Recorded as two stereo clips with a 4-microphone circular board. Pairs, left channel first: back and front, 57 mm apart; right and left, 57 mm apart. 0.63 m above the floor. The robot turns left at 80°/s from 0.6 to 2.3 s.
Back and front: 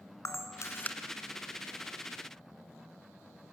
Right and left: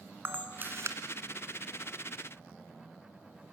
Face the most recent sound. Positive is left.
turn(degrees=10)